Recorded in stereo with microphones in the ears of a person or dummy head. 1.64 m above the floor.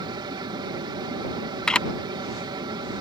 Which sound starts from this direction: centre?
A camera shutter, at 1.7 s.